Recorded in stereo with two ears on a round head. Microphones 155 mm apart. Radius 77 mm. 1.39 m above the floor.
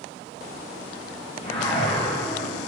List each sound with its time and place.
1.4 s a whoosh: 30° left (ahead or behind), 0.5 m